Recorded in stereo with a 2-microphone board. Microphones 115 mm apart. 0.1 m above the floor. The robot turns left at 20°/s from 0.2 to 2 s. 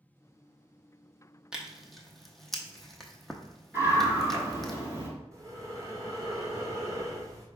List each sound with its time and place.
1.5 s tearing paper: 5° right (ahead or behind), 0.7 m; by 4.7 s centre (ahead or behind), 0.7 m
3.7 s a scream: 20° right (ahead or behind), 1.6 m
5.3 s breathing: 25° right (ahead or behind), 1.2 m